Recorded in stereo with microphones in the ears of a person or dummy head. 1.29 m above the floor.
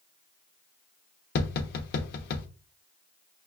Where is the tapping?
50° left (ahead or behind), 0.9 m.